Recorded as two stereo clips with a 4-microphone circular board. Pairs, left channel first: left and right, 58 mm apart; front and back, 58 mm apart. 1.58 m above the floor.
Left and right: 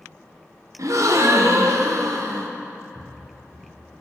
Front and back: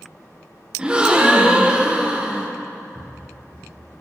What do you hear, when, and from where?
0.8 s a gasp: 110° right, 1.1 m
3.0 s footsteps: 60° right, 5 m; by 4.0 s 70° right, 4.5 m